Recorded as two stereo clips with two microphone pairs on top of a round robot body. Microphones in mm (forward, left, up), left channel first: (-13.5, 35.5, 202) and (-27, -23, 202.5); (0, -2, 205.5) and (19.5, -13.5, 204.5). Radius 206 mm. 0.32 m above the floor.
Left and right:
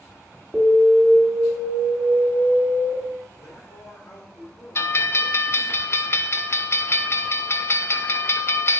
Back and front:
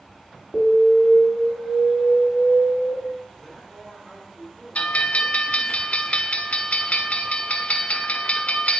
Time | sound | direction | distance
0.5 | an alarm | 160° right | 1.8 m
3.4 | a man speaking | 60° left | 3 m
4.8 | a bell | 125° left | 0.5 m